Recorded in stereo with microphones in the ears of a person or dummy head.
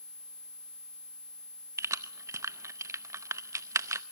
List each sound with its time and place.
1.8 s keys jangling: 15° right (ahead or behind), 0.7 m